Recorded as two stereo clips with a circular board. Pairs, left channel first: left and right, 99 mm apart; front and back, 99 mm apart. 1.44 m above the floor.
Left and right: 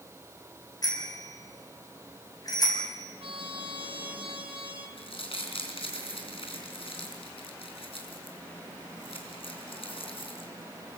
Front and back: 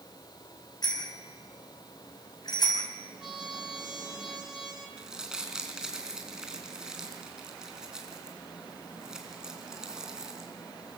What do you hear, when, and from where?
0.8 s a bicycle bell: 40° left, 6.5 m
3.2 s a trumpet: 95° right, 3 m
5.0 s crumpling: 95° left, 4 m